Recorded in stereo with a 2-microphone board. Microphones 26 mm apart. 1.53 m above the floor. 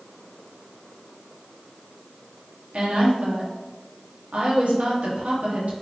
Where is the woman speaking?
75° right (ahead or behind), 1.1 m.